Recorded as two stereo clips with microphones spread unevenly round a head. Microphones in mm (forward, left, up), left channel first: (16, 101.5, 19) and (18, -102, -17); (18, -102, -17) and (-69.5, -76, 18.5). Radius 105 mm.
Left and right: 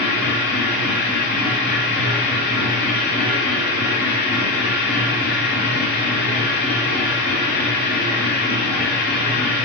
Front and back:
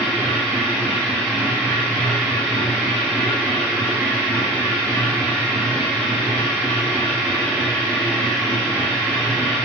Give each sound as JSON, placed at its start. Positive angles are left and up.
{"t": 0.0, "sound": "a machine running", "azimuth_deg": 80, "distance_m": 3.0}